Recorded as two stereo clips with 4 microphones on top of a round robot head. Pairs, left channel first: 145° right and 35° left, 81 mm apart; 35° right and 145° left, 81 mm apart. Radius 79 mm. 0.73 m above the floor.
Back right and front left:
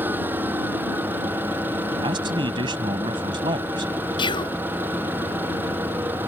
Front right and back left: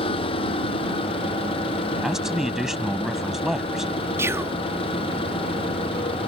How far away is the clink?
No clink in this recording.